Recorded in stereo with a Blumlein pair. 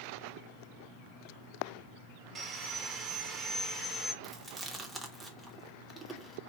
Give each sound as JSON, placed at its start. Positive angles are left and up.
{"t": 2.4, "sound": "sawing", "azimuth_deg": -20, "distance_m": 0.8}
{"t": 4.2, "sound": "chewing", "azimuth_deg": -5, "distance_m": 0.8}